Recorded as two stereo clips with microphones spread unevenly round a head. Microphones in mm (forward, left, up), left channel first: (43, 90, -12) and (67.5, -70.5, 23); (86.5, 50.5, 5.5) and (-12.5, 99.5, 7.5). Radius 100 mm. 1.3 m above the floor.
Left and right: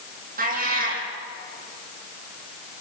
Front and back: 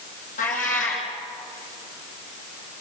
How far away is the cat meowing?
About 6.5 m.